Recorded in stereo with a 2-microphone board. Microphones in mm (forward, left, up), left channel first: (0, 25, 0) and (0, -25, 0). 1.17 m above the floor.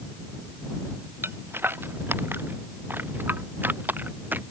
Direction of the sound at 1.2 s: 50° right (ahead or behind).